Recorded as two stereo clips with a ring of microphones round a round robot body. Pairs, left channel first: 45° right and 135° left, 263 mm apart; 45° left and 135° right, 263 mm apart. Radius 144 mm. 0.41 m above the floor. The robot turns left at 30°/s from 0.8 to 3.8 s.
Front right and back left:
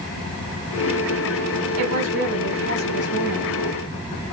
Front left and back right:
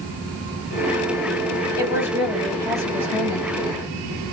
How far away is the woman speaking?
About 2.5 m.